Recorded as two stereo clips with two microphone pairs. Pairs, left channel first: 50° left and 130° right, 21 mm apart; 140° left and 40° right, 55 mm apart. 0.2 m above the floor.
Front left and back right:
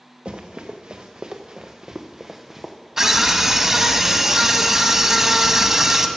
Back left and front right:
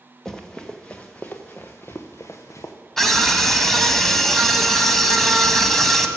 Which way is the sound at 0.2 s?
140° right.